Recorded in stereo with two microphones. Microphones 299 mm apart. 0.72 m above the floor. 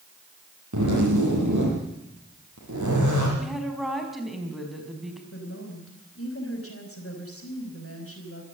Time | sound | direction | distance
0.7 | a zipper | 70° right (ahead or behind) | 9.5 m
3.4 | a woman speaking | centre (ahead or behind) | 4.5 m
5.3 | a woman speaking | 50° left (ahead or behind) | 4.5 m